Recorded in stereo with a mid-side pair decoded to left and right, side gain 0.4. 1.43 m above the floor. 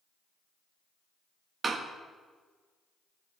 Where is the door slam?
45° right, 1.6 m.